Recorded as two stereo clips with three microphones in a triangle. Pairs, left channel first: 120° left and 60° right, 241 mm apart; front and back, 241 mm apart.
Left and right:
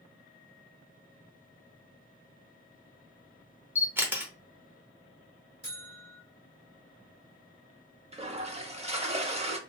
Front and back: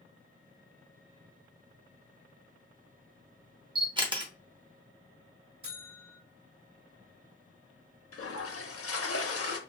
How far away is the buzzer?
About 1.8 m.